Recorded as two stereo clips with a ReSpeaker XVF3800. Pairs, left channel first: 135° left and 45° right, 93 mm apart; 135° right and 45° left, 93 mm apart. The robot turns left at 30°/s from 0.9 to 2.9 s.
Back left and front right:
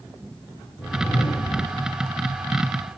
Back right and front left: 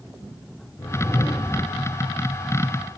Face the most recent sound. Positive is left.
turn(degrees=120)